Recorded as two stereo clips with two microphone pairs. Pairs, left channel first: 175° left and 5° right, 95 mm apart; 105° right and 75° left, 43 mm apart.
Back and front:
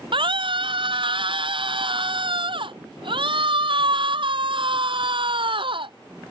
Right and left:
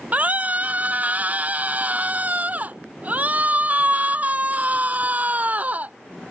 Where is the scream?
20° left.